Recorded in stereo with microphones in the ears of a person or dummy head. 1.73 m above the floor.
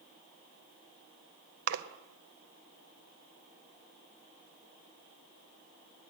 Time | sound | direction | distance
1.7 | a splash | 60° right (ahead or behind) | 0.9 m